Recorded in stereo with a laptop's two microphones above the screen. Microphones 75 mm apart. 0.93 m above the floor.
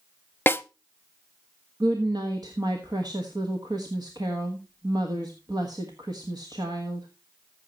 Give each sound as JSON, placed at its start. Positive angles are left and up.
{"t": 0.5, "sound": "a snare drum", "side_deg": 25, "distance_m": 0.6}
{"t": 1.8, "sound": "a woman speaking", "side_deg": -65, "distance_m": 1.4}